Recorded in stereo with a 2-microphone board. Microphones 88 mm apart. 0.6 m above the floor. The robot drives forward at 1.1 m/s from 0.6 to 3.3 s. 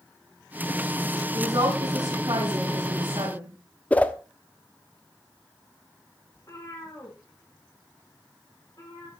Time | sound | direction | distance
1.3 | a woman speaking | 50° right (ahead or behind) | 5.5 m
3.9 | a whoosh | 15° left (ahead or behind) | 0.8 m
6.3 | a cat meowing | 40° left (ahead or behind) | 9 m